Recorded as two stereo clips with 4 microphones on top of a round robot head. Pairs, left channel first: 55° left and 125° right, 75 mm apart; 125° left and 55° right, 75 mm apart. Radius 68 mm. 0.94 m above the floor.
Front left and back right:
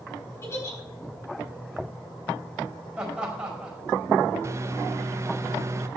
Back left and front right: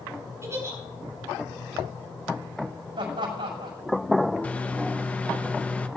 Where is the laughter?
45° right, 5.5 m.